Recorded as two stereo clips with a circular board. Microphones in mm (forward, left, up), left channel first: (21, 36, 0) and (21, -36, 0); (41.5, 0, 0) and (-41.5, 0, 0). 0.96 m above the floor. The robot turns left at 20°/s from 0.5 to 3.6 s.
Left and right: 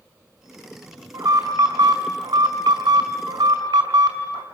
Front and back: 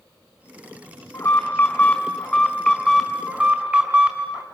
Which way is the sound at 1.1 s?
55° right.